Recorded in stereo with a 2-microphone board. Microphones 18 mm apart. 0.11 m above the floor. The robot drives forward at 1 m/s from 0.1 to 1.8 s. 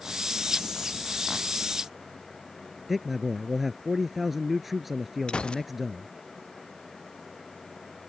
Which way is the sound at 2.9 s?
10° right (ahead or behind).